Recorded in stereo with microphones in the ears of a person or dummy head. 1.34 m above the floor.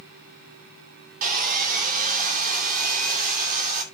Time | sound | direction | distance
1.2 | sawing | 50° right (ahead or behind) | 2 m